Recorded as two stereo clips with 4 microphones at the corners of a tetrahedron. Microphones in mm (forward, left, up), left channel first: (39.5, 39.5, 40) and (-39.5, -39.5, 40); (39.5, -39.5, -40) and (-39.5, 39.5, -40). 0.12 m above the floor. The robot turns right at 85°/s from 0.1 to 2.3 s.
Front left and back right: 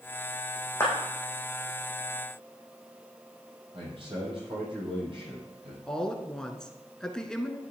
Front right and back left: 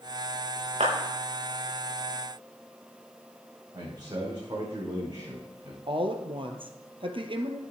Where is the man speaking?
175° right, 6.5 m.